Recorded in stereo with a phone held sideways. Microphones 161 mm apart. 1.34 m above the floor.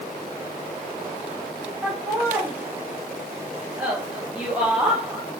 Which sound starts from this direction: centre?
Laughter, at 1.8 s.